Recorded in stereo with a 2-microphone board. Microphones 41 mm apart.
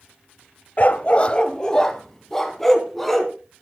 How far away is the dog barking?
About 0.9 m.